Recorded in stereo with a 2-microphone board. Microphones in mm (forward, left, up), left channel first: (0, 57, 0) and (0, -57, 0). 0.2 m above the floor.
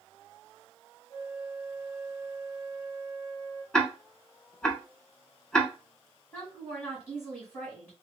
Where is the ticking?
5° left (ahead or behind), 0.6 m.